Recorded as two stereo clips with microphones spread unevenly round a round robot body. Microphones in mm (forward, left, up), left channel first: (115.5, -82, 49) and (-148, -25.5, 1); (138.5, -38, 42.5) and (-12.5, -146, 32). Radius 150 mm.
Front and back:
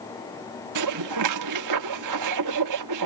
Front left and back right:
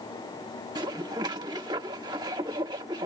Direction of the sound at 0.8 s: 140° left.